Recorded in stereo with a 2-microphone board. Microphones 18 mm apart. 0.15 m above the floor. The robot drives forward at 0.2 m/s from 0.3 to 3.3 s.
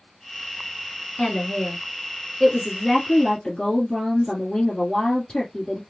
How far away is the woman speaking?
About 1.5 m.